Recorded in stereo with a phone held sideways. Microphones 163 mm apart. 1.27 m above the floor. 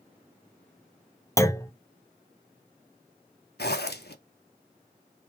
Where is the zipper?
85° left, 0.9 m.